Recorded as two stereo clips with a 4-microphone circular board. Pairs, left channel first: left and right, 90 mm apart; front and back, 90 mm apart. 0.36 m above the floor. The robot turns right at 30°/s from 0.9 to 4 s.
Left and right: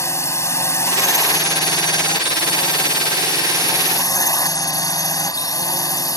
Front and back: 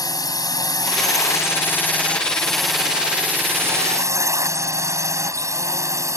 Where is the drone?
40° left; by 6.2 s 130° left.